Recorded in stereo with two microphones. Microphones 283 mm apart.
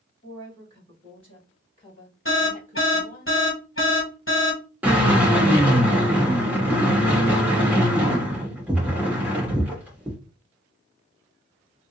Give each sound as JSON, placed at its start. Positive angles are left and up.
{"t": 0.2, "sound": "a woman speaking", "side_deg": 15, "distance_m": 3.0}
{"t": 2.2, "sound": "an alarm", "side_deg": 45, "distance_m": 1.4}
{"t": 4.8, "sound": "a drill", "side_deg": -5, "distance_m": 2.0}